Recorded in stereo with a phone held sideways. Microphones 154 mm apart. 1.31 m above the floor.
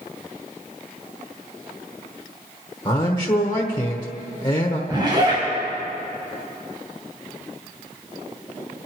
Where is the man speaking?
30° left (ahead or behind), 1.2 m.